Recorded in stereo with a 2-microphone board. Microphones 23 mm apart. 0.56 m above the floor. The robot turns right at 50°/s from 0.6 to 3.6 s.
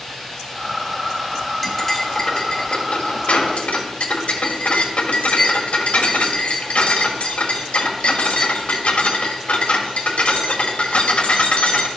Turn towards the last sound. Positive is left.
turn(degrees=105)